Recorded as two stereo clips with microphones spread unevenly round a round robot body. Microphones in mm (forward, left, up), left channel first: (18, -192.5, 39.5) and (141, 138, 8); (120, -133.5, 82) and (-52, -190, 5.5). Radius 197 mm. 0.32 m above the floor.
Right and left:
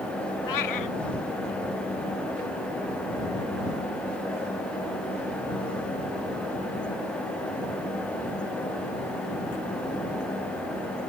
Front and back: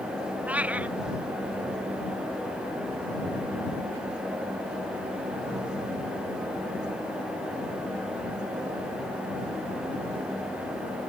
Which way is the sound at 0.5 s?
80° right.